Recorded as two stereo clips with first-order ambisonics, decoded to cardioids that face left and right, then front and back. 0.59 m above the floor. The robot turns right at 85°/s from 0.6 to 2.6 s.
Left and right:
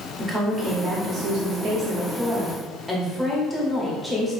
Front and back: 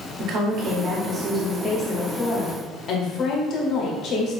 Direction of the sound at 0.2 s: 175° right.